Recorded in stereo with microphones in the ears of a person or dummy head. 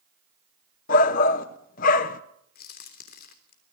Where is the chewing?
I don't hear chewing.